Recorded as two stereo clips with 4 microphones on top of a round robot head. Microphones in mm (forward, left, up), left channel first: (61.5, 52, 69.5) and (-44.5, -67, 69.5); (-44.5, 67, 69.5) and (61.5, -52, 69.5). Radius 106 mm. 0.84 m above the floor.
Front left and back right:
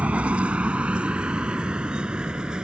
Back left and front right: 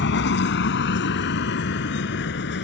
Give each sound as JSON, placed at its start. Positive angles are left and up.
{"t": 0.0, "sound": "a vehicle", "azimuth_deg": 145}